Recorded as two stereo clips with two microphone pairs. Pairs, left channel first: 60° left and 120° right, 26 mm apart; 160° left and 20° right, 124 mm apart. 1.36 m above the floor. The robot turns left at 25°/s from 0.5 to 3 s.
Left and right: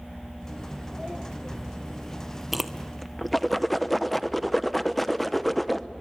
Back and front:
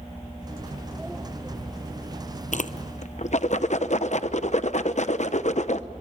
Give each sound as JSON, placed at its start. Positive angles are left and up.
{"t": 2.5, "sound": "a whoosh", "azimuth_deg": 155, "distance_m": 0.8}